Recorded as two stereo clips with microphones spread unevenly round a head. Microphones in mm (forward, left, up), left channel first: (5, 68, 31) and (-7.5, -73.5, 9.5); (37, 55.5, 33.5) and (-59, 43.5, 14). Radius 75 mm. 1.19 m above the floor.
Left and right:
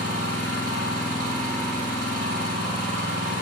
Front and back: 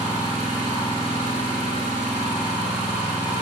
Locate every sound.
0.0 s an engine running: 55° right, 3.5 m